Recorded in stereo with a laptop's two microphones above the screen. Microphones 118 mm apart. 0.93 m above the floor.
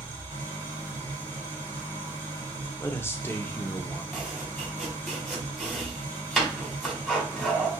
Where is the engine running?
40° right (ahead or behind), 3 m.